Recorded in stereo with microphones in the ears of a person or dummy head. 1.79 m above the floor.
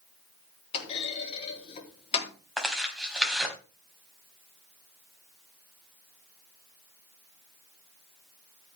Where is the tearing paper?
5° right (ahead or behind), 4 m.